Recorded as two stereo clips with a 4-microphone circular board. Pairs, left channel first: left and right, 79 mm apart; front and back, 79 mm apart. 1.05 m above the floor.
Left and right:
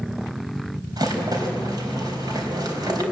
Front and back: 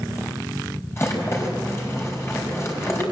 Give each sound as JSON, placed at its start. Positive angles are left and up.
{"t": 1.0, "sound": "a rattle", "azimuth_deg": -55, "distance_m": 4.5}